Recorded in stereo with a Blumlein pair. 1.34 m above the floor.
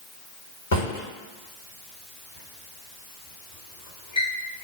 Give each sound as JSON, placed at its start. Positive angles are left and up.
{"t": 0.7, "sound": "a drawer", "azimuth_deg": 65, "distance_m": 1.3}